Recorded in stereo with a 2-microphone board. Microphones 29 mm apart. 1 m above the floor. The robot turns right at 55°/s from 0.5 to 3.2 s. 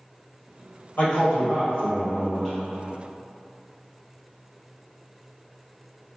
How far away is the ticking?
No ticking in this recording.